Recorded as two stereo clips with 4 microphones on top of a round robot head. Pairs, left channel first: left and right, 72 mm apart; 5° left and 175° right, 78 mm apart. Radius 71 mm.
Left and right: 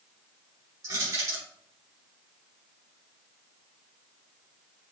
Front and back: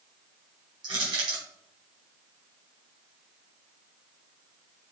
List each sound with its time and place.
0.8 s crushing: 140° right, 5 m